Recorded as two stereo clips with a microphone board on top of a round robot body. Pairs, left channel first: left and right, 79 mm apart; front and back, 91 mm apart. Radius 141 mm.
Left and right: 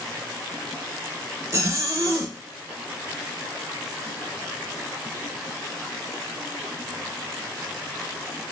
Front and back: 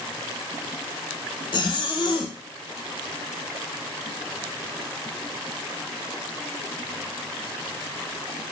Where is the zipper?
35° right, 0.6 m.